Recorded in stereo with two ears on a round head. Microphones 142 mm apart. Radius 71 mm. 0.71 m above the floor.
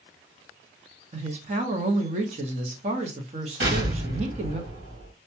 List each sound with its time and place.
1.1 s a woman speaking: 45° right (ahead or behind), 0.9 m
3.6 s an explosion: 85° right, 2.5 m